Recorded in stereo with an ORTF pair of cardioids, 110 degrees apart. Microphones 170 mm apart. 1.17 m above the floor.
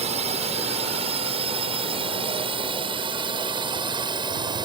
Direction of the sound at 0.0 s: 40° right.